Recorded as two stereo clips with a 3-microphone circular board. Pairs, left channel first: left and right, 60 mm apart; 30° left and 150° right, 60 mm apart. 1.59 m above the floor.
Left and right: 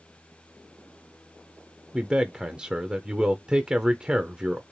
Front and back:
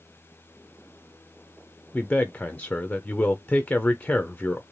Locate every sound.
1.9 s a man speaking: 25° right, 0.6 m